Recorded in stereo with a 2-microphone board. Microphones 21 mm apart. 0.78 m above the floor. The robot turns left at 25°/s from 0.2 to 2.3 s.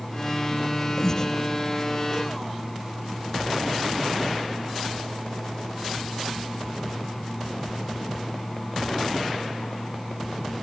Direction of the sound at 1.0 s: 20° left (ahead or behind).